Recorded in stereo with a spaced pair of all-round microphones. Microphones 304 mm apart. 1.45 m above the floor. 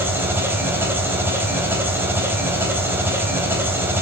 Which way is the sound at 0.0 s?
5° right (ahead or behind).